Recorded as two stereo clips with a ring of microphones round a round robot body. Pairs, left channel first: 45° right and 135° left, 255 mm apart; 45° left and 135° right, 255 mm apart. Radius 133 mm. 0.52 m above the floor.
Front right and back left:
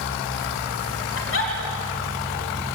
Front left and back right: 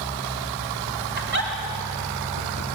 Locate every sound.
1.2 s a giggle: 85° right, 3.5 m